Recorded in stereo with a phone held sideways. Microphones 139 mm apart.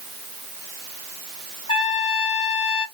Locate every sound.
1.7 s a trumpet: 45° left (ahead or behind), 1.4 m